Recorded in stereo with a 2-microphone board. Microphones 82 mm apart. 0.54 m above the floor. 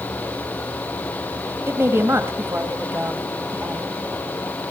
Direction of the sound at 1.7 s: 30° right (ahead or behind).